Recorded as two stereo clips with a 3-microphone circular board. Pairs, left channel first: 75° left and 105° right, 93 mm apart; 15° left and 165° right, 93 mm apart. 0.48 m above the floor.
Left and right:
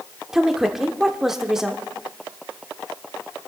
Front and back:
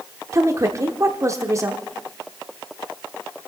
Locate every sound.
0.3 s a woman speaking: 175° left, 0.9 m